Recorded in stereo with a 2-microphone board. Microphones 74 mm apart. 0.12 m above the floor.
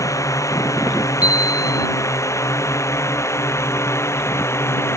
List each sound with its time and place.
0.0 s a drone: 50° left (ahead or behind); by 5.0 s 40° left (ahead or behind)
1.2 s a chime: 20° right (ahead or behind)